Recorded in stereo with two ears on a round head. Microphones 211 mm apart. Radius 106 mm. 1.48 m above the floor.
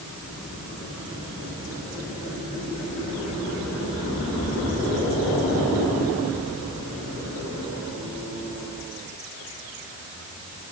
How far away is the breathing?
I don't hear breathing.